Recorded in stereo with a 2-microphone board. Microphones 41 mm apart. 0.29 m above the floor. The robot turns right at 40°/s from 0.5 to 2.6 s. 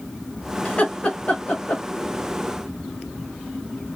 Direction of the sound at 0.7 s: 35° left (ahead or behind).